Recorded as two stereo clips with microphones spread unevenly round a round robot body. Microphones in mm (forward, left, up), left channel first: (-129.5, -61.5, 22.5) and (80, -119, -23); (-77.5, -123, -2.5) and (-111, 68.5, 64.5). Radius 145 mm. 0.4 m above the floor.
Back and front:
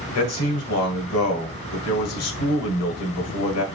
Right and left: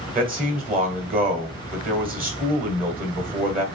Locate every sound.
0.1 s a man speaking: 155° left, 1.7 m